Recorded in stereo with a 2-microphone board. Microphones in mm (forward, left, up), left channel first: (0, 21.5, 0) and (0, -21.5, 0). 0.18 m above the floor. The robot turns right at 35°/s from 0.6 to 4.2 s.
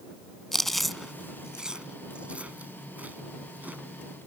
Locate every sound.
0.5 s chewing: 5° left (ahead or behind); by 3.8 s 40° right (ahead or behind)